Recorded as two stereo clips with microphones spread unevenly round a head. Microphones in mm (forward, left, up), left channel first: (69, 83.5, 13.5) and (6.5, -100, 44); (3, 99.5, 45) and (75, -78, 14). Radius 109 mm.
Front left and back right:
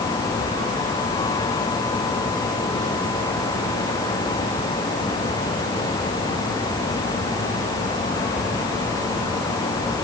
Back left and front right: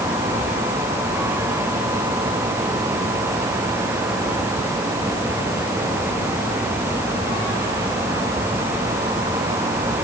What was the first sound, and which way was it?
Only background noise.